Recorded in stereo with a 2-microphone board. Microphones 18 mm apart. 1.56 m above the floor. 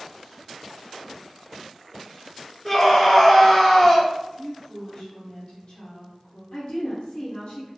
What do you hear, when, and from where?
2.6 s a scream: 5° left (ahead or behind), 0.6 m
4.4 s a woman speaking: 65° left (ahead or behind), 1.2 m
6.5 s a woman speaking: 60° left (ahead or behind), 0.8 m